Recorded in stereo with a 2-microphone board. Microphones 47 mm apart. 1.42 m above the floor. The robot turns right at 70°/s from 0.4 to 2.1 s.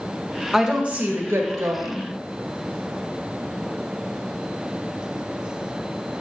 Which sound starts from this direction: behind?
A woman speaking, at 0.5 s.